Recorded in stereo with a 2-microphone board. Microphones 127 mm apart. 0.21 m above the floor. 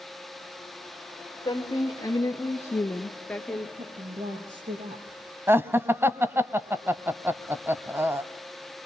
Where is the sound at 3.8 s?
75° right (ahead or behind), 4.5 m.